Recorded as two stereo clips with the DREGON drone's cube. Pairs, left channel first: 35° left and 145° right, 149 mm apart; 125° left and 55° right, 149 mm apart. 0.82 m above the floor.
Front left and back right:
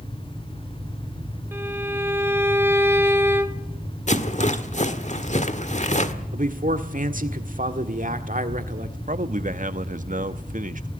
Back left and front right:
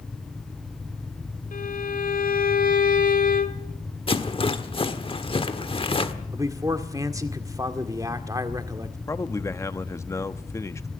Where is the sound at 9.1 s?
165° right, 1.1 m.